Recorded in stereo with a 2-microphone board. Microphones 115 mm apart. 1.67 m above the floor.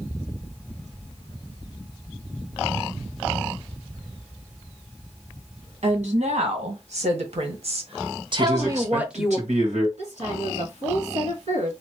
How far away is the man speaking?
About 1.6 m.